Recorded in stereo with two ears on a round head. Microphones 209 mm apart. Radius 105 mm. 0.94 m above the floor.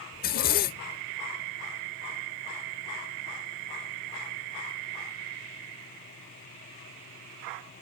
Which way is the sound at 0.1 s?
40° left (ahead or behind).